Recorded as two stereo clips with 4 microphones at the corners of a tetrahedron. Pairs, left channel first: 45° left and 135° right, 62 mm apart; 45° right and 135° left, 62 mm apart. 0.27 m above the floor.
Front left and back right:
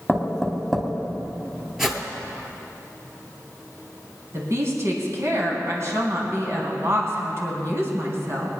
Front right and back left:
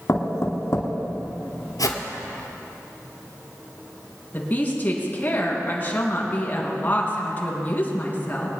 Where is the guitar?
I don't hear a guitar.